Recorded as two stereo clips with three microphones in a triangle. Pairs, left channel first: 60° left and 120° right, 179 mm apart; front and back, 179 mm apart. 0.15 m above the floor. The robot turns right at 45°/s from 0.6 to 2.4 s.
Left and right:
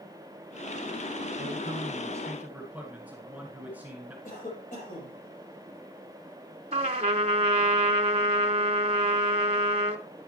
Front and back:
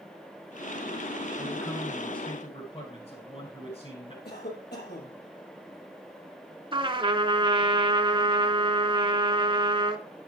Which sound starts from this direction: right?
A man speaking, at 1.4 s.